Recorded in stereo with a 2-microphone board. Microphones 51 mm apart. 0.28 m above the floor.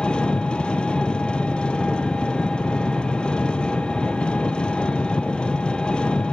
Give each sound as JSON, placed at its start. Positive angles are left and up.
{"t": 0.0, "sound": "an engine running", "side_deg": 20, "distance_m": 1.9}